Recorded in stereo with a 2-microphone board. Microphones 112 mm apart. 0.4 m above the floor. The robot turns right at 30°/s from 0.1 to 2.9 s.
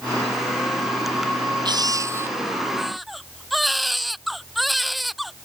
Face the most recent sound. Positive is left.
turn(degrees=0)